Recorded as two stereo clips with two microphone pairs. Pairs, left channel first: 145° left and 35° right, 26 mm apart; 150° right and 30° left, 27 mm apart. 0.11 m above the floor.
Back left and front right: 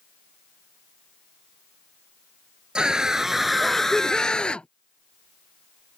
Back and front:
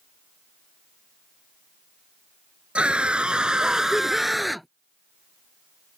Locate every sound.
2.8 s a scream: 5° left; by 4.7 s 120° left